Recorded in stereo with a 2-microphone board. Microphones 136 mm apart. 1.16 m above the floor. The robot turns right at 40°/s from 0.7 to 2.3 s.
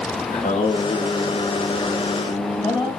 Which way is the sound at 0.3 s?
80° left.